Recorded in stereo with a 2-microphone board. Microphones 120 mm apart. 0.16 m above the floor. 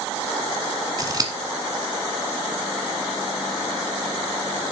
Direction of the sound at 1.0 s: 35° right (ahead or behind).